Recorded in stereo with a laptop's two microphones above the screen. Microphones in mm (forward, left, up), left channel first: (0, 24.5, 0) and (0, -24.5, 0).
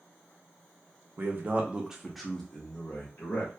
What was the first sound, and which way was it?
A man speaking, 45° right (ahead or behind).